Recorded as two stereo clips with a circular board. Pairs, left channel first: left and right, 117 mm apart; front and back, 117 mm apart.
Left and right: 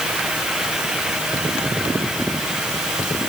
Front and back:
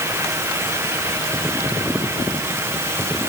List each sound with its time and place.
Only background noise.